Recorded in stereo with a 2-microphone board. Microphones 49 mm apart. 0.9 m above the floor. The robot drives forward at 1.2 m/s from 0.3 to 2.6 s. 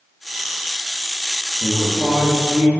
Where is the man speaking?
15° right (ahead or behind), 1.1 m; by 2.7 s 10° right (ahead or behind), 2.5 m.